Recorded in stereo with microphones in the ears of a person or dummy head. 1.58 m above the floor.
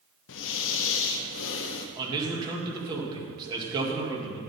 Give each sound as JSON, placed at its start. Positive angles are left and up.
{"t": 0.3, "sound": "breathing", "side_deg": 70, "distance_m": 0.8}
{"t": 2.0, "sound": "a man speaking", "side_deg": -20, "distance_m": 2.0}